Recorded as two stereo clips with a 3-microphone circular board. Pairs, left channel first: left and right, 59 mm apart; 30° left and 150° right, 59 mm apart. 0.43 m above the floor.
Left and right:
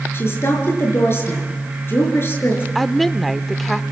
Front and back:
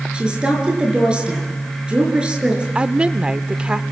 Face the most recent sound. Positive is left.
turn(degrees=175)